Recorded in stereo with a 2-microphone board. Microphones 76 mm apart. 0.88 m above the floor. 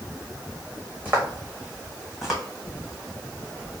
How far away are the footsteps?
About 2 m.